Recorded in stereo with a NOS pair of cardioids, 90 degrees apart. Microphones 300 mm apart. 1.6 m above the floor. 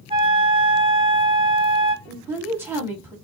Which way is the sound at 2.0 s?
5° right.